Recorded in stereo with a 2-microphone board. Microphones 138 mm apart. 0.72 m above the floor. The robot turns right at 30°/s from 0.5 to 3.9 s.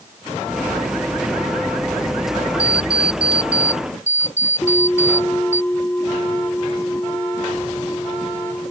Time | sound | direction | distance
2.6 | an alarm clock | 75° left | ?
4.6 | a bell | 15° left (ahead or behind) | ?